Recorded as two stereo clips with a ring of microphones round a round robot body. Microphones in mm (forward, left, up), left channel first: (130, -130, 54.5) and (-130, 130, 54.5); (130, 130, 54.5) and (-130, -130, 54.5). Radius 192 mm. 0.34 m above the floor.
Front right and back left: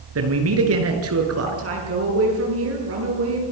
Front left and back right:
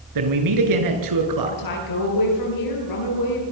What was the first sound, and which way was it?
A man speaking, 170° right.